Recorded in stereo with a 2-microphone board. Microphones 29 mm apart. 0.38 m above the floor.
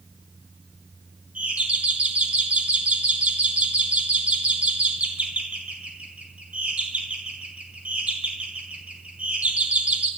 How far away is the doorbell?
About 4 m.